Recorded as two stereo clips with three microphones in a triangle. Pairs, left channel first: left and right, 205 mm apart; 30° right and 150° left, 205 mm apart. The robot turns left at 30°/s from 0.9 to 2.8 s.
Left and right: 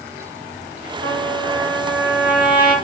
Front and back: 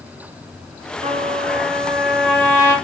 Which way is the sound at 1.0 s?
95° left.